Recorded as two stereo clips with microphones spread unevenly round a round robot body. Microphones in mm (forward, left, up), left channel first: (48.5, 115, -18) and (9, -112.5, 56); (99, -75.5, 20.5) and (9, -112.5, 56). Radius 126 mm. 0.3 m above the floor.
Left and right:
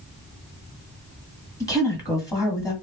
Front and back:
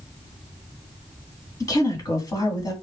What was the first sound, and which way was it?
A woman speaking, 25° left.